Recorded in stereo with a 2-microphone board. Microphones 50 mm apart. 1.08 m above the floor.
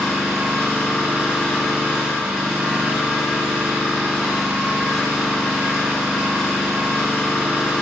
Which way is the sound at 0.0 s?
10° right (ahead or behind).